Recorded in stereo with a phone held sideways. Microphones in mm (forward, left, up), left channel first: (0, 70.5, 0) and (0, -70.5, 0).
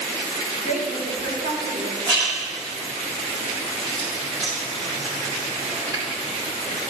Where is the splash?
30° right (ahead or behind), 2.5 m.